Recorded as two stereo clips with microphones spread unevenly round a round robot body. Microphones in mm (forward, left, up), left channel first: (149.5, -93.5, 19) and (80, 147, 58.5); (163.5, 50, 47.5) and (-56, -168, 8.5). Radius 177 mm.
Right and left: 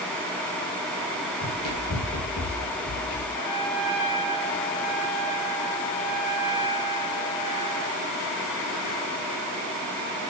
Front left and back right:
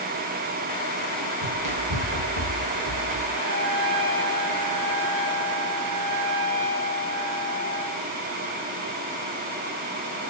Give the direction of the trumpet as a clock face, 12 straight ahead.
3 o'clock.